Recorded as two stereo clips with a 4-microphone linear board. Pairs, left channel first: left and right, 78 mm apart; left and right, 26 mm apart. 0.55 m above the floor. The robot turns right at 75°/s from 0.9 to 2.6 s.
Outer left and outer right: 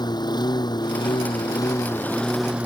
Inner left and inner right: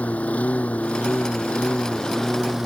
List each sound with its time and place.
0.0 s a lawn mower: 65° left; by 2.7 s 165° right